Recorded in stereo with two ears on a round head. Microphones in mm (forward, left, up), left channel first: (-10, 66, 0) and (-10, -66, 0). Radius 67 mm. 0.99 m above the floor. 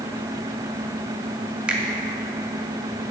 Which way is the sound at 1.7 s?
10° right (ahead or behind).